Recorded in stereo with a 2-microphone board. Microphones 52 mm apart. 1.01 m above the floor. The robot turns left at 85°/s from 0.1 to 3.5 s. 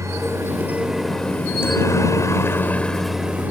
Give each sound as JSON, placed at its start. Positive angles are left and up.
{"t": 0.0, "sound": "a helicopter", "side_deg": -70}